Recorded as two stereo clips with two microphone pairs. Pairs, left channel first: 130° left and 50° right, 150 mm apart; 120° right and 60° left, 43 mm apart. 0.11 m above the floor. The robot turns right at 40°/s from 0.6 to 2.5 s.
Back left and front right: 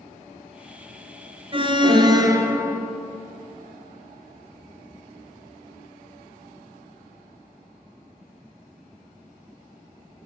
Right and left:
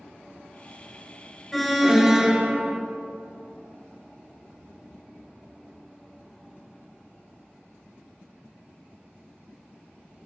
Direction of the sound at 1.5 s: 35° right.